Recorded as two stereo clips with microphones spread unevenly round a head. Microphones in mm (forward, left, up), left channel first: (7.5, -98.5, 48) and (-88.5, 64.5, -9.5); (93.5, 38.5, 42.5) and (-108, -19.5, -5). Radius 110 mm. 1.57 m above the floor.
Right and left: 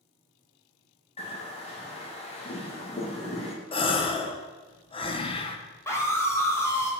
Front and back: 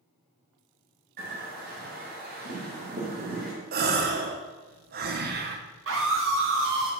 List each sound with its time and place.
1.2 s a bird: 120° right, 2.5 m
3.7 s a gasp: 115° right, 0.9 m
5.9 s a scream: 135° right, 2.5 m